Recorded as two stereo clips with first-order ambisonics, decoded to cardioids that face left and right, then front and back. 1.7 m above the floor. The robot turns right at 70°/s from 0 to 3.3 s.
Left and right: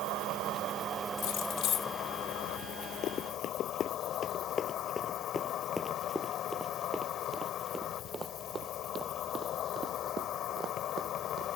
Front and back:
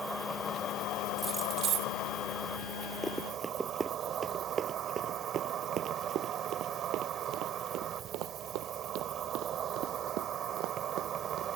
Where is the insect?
100° right; by 11.6 s 130° left.